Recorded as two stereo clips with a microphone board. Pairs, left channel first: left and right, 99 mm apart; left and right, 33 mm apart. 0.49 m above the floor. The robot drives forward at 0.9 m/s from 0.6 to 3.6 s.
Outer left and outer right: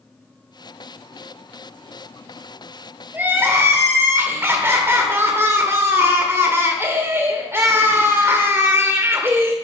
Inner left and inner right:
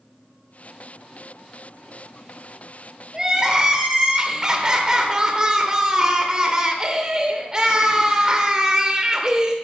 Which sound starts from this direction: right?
Crying, at 3.1 s.